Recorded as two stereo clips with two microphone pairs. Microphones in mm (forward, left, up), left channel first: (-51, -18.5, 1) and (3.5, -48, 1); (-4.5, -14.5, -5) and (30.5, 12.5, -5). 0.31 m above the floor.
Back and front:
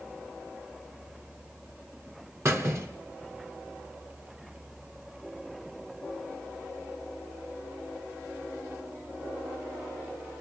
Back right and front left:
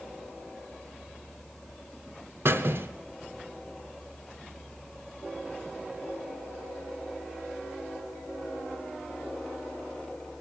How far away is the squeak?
About 1.1 m.